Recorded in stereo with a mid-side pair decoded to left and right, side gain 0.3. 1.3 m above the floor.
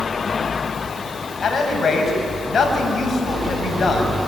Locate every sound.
1.4 s a man speaking: 55° left, 7 m